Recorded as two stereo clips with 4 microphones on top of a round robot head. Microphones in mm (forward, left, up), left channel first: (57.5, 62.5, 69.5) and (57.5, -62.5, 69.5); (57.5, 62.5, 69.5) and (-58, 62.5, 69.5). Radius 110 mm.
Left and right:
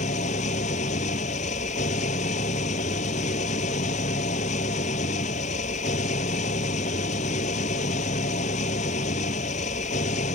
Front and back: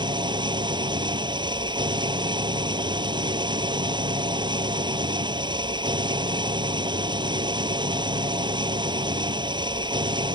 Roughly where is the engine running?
Behind left.